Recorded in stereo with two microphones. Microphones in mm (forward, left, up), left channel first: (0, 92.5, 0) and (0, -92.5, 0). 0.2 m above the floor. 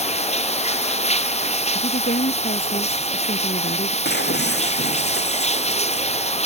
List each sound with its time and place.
0.0 s running water: 35° left (ahead or behind)
1.8 s a woman speaking: 45° left (ahead or behind)
4.0 s breaking glass: 60° left (ahead or behind)